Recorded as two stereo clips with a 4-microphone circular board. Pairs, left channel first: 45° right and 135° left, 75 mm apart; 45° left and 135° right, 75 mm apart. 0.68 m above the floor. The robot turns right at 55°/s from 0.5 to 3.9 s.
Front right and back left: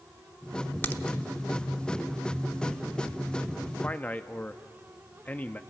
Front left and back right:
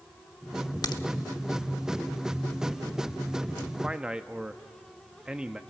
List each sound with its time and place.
0.8 s a crack: 15° left, 0.7 m; by 1.0 s 25° left, 0.7 m
3.8 s a man speaking: 85° right, 0.6 m; by 5.6 s 80° right, 0.6 m